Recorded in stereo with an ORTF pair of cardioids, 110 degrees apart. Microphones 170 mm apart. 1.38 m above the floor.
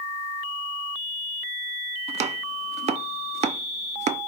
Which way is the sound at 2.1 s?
40° right.